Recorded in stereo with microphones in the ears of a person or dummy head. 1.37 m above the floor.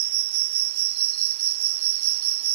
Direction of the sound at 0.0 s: 70° right (ahead or behind).